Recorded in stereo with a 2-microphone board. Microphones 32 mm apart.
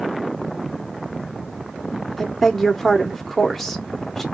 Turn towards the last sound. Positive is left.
turn(degrees=5)  # may be behind; listen again after turning